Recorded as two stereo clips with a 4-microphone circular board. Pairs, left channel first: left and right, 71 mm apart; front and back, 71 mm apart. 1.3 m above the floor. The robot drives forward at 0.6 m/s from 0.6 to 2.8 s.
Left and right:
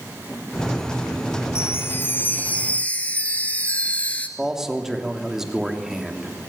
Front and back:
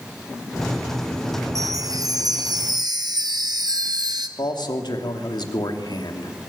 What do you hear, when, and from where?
1.6 s a chime: 140° left, 0.7 m; by 4.3 s 160° left, 1.4 m
4.4 s a man speaking: 5° right, 3 m